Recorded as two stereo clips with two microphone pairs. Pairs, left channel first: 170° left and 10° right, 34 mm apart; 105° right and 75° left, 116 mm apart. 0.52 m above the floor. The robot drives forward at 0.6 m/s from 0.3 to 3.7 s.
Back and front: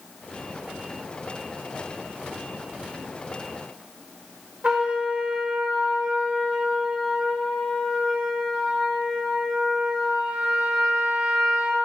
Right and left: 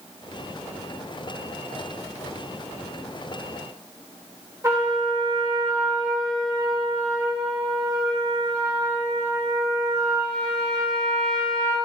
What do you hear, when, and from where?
4.6 s a trumpet: 15° left, 1.6 m